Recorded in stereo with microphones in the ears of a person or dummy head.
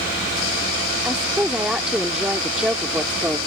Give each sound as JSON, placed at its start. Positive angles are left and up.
{"t": 1.1, "sound": "a woman speaking", "side_deg": -5}